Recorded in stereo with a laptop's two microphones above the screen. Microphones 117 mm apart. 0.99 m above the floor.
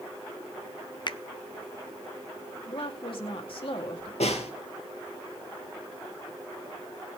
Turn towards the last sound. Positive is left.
turn(degrees=75)  # may be behind; listen again after turning